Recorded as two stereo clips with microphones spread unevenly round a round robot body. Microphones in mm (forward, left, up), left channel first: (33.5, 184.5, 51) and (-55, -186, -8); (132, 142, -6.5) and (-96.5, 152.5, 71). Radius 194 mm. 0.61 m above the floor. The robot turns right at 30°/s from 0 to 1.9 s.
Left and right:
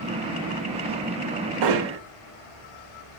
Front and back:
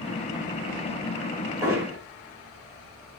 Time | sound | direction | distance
1.6 | hammering | 95° right | 1.5 m